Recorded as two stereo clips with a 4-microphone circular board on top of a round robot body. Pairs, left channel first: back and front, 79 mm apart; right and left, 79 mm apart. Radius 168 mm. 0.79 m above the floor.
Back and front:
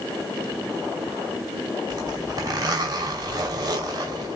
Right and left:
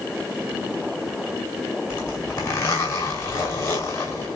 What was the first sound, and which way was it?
A zipper, 45° right.